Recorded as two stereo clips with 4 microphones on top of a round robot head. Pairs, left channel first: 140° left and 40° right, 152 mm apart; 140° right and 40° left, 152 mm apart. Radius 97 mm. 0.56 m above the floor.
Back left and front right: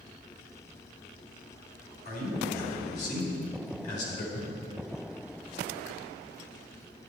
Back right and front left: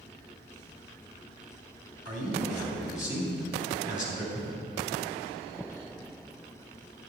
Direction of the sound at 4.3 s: 165° left.